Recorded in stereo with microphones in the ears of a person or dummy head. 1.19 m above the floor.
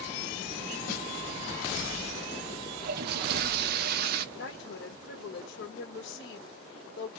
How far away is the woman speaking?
About 1.6 m.